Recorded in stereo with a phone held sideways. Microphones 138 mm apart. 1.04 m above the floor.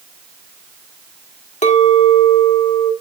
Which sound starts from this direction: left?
A clink, at 1.6 s.